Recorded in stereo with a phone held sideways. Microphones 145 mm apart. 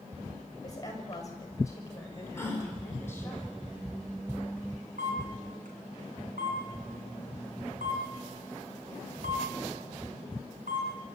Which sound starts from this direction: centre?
A gasp, at 2.4 s.